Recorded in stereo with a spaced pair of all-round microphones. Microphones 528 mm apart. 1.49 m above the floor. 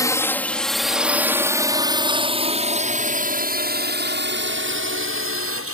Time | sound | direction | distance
0.0 | a drone | 5° left (ahead or behind) | ?